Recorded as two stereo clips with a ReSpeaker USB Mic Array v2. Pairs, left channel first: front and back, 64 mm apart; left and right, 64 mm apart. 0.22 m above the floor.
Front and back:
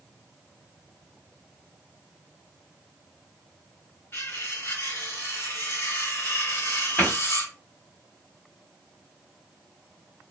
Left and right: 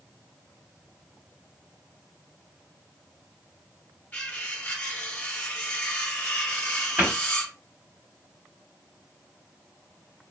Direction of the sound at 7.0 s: 45° right.